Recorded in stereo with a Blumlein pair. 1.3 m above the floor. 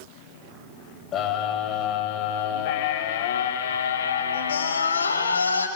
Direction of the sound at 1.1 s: 30° left.